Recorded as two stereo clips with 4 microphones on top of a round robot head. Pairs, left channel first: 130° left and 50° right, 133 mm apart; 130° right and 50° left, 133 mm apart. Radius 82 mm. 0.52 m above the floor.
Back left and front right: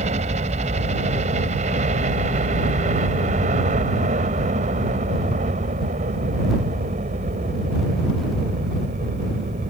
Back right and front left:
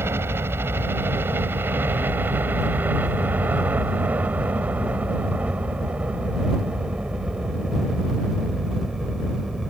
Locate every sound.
0.0 s a helicopter: 25° right; by 9.7 s 40° right